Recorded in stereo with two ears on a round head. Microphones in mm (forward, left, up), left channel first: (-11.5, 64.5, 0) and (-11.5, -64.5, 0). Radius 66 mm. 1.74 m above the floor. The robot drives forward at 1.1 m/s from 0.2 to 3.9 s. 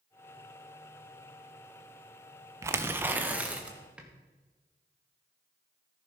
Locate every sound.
2.6 s tearing paper: 20° right (ahead or behind), 0.8 m; by 4.1 s 10° right (ahead or behind), 1.8 m